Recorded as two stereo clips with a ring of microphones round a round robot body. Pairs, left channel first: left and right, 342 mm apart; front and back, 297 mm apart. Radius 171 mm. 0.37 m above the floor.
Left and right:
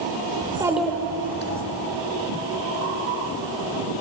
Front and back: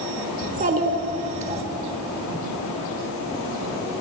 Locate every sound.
0.4 s a child speaking: 140° right, 1.0 m; by 1.6 s 120° left, 1.2 m